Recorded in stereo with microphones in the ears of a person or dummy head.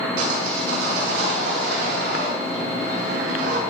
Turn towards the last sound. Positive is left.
turn(degrees=-65)  # may be behind; listen again after turning